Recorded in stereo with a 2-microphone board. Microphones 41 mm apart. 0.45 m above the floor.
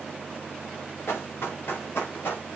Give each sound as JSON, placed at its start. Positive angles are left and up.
{"t": 1.1, "sound": "running footsteps", "side_deg": 70, "distance_m": 3.0}